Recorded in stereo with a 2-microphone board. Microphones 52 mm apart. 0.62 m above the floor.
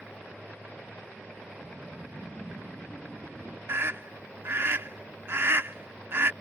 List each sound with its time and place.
1.6 s a whoosh: 15° right (ahead or behind)
3.7 s a scream: 50° right (ahead or behind)